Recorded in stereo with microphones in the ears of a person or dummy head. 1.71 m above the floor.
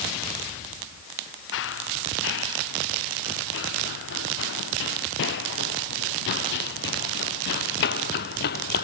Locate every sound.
1.5 s running footsteps: 70° left (ahead or behind); by 8.8 s 55° left (ahead or behind)